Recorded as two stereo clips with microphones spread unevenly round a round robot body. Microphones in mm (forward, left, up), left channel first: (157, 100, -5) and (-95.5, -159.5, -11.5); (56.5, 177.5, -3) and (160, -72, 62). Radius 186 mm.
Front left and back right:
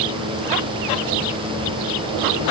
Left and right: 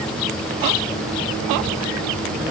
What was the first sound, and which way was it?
Only background noise.